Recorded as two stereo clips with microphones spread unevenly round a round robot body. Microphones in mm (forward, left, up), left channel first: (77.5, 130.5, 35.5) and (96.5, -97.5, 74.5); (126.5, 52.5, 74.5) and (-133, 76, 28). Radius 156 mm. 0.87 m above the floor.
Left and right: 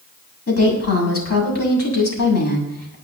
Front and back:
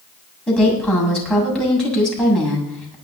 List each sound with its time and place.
0.5 s a woman speaking: 80° left, 7.5 m